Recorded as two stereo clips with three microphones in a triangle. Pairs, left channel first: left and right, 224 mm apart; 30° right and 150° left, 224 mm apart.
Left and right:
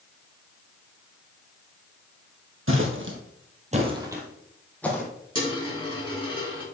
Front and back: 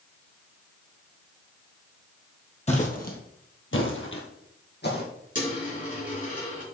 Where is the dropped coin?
20° left, 4.5 m.